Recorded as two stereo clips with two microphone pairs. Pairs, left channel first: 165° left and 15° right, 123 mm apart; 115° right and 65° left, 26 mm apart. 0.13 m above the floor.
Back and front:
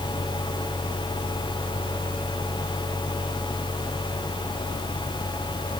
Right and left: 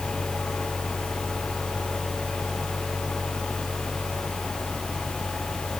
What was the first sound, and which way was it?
Only background noise.